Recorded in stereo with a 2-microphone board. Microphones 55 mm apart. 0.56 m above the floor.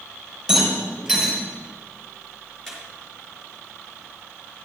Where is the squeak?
5° left (ahead or behind), 4 m.